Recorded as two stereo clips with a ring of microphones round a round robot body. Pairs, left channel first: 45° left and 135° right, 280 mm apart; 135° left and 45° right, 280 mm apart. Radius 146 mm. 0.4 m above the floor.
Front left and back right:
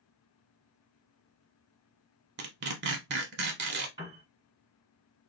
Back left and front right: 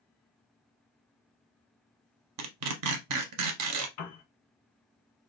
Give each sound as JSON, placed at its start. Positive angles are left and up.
{"t": 2.4, "sound": "tearing paper", "azimuth_deg": -80, "distance_m": 0.6}
{"t": 4.0, "sound": "a piano", "azimuth_deg": 145, "distance_m": 1.3}